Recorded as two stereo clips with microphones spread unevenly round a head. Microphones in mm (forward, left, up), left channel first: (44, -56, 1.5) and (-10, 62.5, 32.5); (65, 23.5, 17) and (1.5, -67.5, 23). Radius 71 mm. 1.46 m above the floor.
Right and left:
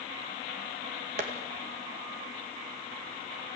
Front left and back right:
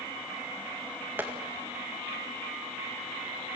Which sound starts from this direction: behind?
Tapping, at 1.2 s.